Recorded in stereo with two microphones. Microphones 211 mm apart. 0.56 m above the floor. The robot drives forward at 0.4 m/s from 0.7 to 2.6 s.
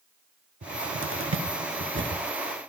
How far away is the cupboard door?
About 0.6 m.